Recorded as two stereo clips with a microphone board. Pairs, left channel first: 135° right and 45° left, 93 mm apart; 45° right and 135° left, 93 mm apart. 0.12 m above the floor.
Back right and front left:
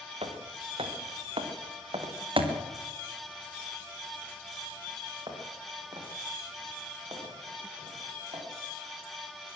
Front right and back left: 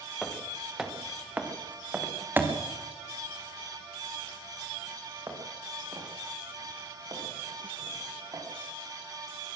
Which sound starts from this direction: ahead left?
Footsteps, at 0.2 s.